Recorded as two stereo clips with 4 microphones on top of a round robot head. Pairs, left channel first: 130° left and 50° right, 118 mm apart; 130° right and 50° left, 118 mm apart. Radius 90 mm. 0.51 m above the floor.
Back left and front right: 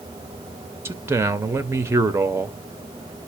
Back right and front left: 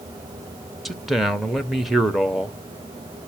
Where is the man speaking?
40° right, 0.8 m.